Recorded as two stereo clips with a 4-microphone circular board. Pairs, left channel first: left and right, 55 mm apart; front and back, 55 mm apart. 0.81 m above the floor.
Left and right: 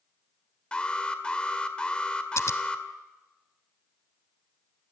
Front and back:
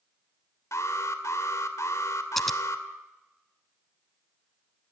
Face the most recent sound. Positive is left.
turn(degrees=85)